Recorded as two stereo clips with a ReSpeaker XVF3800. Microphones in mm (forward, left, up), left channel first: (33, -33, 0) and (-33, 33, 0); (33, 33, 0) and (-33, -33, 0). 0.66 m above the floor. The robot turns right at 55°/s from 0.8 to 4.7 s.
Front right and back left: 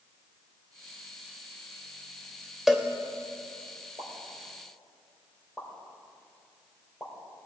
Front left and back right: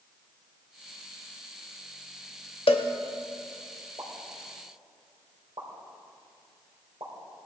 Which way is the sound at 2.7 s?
50° left.